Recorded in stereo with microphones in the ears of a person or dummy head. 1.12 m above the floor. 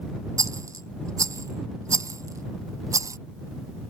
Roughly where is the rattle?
Centre.